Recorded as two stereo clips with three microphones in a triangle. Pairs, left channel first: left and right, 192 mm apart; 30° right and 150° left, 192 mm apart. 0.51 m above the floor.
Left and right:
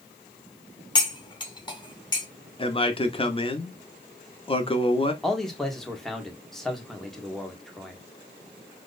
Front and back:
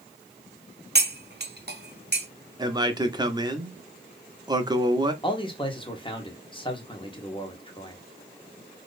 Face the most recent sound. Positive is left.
turn(degrees=5)